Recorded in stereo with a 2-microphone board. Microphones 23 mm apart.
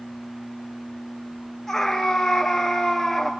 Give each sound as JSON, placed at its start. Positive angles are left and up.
{"t": 1.7, "sound": "a scream", "side_deg": 20, "distance_m": 1.5}